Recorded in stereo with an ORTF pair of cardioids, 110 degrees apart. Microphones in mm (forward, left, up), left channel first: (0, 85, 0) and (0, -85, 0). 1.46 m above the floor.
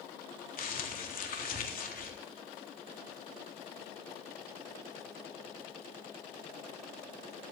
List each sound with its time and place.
0.6 s crumpling: 55° left, 3.5 m